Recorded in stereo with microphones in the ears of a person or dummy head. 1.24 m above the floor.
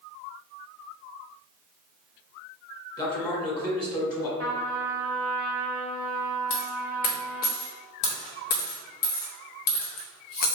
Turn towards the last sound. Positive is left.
turn(degrees=45)  # may be behind; listen again after turning